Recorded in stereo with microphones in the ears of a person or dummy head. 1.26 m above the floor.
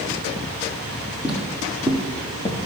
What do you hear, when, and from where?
1.2 s footsteps: 5° right (ahead or behind), 2.5 m; by 2.6 s 20° left (ahead or behind), 1.6 m